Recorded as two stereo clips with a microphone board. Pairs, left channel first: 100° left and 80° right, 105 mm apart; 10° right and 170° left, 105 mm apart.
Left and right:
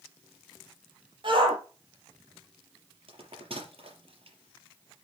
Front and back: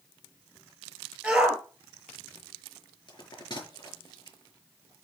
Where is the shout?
110° right, 4.5 m.